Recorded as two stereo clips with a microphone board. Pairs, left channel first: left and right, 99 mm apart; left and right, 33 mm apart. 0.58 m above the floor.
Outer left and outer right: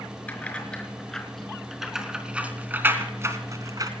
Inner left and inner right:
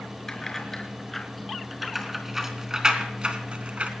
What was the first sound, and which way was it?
Keys jangling, 15° left (ahead or behind).